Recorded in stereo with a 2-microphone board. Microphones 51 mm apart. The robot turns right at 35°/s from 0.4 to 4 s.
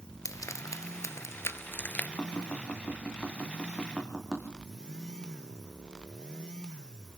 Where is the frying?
90° left, 1.1 m; by 2.1 s 30° left (ahead or behind), 1.1 m.